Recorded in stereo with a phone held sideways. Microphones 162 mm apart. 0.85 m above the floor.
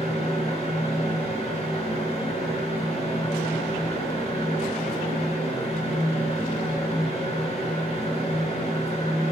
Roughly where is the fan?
Left.